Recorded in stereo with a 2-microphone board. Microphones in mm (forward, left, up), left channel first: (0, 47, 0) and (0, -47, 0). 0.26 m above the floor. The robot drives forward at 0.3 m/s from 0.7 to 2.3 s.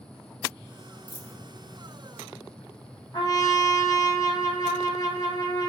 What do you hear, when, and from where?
1.1 s a dropped coin: 15° right (ahead or behind), 1.1 m
3.1 s a trumpet: 45° left (ahead or behind), 2.0 m